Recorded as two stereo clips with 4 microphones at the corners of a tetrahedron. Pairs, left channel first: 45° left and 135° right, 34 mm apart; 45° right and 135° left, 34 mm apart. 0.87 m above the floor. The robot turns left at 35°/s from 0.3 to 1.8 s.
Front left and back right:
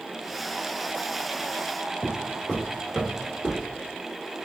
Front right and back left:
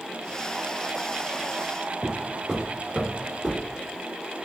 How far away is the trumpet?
No trumpet in this recording.